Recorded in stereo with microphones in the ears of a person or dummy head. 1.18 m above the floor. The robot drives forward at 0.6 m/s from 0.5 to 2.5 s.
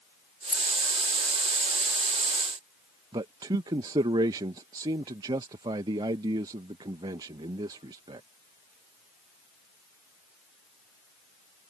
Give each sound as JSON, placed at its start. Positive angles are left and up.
{"t": 0.5, "sound": "keys jangling", "side_deg": 0}
{"t": 3.1, "sound": "a man speaking", "side_deg": -20}